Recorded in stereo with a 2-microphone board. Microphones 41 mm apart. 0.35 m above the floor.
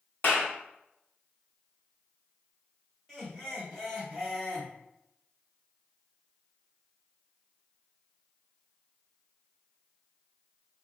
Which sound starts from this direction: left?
A clap, at 0.2 s.